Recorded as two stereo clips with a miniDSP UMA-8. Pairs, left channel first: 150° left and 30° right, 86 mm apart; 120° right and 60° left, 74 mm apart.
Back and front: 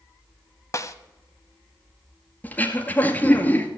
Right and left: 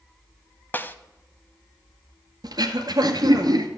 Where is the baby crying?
No baby crying in this recording.